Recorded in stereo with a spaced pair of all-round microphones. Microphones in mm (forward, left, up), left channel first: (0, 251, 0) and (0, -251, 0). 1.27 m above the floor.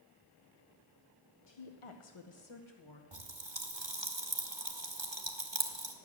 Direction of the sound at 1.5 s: 55° left (ahead or behind).